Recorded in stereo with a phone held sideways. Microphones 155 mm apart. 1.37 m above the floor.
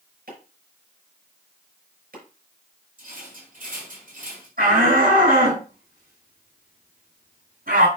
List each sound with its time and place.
0.3 s chopping: 75° right (ahead or behind), 6 m
3.0 s a rattle: 60° right (ahead or behind), 5.5 m
4.6 s a shout: 70° right (ahead or behind), 6.5 m